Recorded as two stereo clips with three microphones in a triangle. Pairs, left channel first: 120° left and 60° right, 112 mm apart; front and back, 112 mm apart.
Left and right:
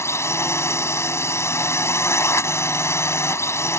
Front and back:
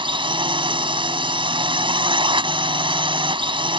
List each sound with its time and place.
0.0 s a drone: 175° left